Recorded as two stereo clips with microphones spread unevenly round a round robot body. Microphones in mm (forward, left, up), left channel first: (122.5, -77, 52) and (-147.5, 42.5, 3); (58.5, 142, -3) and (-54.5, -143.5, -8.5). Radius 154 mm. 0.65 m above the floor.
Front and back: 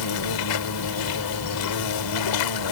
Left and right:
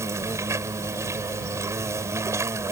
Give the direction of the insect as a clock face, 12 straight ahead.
1 o'clock.